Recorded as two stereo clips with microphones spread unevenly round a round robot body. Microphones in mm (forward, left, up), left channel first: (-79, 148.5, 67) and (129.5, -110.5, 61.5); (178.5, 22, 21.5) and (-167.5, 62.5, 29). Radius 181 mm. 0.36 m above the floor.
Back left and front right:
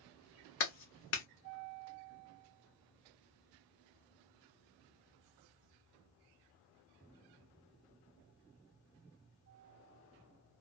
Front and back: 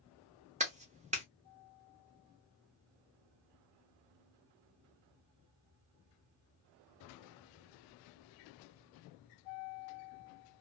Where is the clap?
110° left, 1.0 m.